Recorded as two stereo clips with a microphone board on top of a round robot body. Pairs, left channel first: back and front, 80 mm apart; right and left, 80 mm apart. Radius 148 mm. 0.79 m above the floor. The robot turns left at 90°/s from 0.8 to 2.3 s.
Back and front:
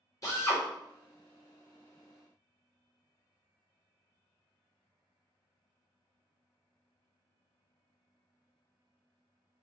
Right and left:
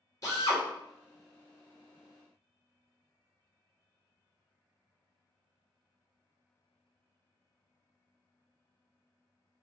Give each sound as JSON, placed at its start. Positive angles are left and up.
{"t": 0.2, "sound": "a drill", "azimuth_deg": -135, "distance_m": 2.0}